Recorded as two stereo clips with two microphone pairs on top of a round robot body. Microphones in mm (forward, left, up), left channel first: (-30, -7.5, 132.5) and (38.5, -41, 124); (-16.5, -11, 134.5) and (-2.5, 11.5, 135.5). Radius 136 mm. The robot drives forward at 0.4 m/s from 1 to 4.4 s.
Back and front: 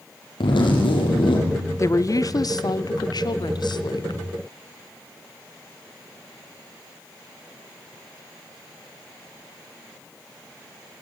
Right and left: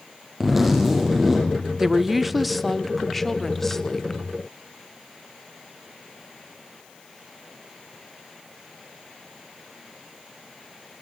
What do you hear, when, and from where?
0.4 s a zipper: 140° left, 5 m
1.8 s a woman speaking: 130° left, 0.9 m; by 4.2 s 165° left, 1.6 m